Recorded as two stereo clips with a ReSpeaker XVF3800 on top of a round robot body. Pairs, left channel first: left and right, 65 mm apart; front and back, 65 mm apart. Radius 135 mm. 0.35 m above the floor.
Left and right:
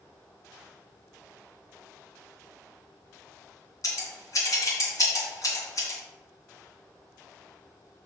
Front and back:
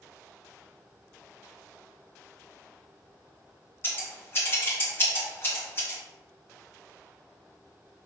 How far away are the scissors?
About 2.5 m.